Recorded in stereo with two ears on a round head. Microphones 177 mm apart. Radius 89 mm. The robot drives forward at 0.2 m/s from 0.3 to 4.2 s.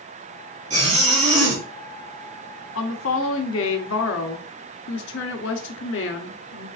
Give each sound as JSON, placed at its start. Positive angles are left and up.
{"t": 0.7, "sound": "a zipper", "side_deg": -35, "distance_m": 2.5}
{"t": 2.8, "sound": "a woman speaking", "side_deg": 80, "distance_m": 0.9}